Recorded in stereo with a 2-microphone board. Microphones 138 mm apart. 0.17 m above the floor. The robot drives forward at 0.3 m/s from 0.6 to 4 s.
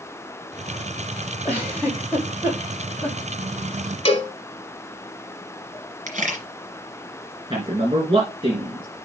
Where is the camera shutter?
60° right (ahead or behind), 2.5 m.